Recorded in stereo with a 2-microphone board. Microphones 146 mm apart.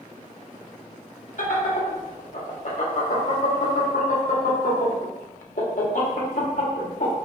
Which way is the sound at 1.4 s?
60° left (ahead or behind).